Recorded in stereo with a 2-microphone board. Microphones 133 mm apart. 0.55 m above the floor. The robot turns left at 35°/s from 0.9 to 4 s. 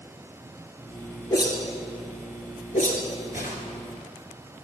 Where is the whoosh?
25° left (ahead or behind), 2 m; by 3.6 s 75° left (ahead or behind), 2 m.